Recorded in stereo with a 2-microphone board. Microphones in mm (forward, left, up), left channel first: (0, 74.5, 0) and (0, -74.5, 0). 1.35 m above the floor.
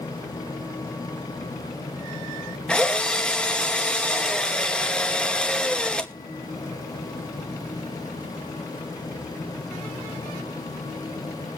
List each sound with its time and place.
2.7 s a drill: 5° left (ahead or behind), 0.9 m